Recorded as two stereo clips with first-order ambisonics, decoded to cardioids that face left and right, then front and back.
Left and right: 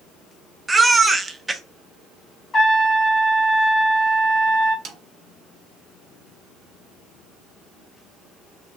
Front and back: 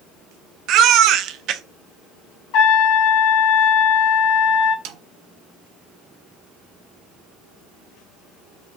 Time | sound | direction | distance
0.7 | a baby crying | 165° right | 0.5 m
2.5 | a trumpet | 25° left | 1.9 m
4.8 | a snare drum | 150° right | 0.6 m